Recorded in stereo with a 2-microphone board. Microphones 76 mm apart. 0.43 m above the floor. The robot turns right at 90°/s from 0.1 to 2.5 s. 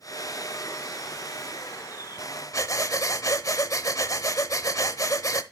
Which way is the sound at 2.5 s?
50° left (ahead or behind).